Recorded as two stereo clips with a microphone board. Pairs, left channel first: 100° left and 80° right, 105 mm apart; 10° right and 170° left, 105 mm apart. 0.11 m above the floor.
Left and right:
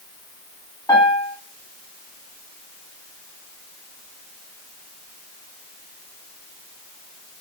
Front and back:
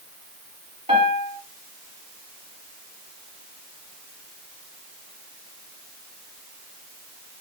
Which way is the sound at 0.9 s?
155° left.